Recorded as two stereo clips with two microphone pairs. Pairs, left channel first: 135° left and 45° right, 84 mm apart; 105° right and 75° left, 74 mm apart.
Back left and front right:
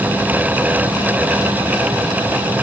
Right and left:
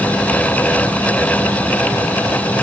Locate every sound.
Only background noise.